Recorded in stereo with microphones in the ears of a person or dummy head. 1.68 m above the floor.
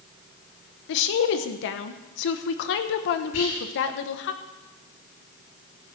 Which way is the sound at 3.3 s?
85° left.